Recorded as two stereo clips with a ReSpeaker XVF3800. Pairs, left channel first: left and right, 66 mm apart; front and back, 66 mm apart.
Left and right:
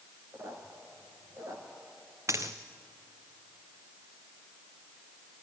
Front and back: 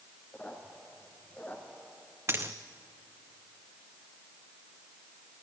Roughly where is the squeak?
Ahead right.